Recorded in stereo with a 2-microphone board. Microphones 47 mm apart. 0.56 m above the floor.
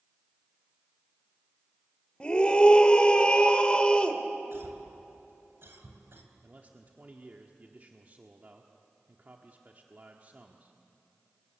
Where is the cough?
60° right (ahead or behind), 4 m.